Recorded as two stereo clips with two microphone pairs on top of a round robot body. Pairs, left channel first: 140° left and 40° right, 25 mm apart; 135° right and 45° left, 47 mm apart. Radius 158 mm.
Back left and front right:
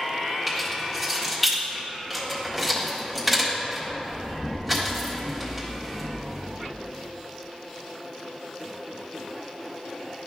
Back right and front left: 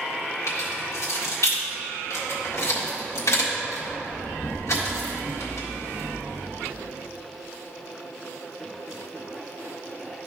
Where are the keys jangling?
125° right, 1.6 m.